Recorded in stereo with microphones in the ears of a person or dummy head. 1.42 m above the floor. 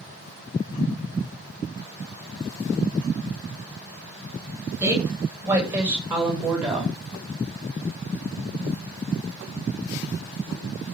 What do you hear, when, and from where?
4.8 s a woman speaking: 10° right (ahead or behind), 8 m; by 7.0 s centre (ahead or behind), 6 m